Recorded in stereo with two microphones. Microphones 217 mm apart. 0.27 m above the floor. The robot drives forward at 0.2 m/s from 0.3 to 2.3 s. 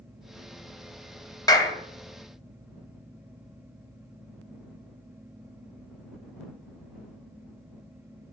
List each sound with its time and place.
1.5 s a clap: 15° left (ahead or behind), 1.0 m; by 1.8 s 20° left (ahead or behind), 0.9 m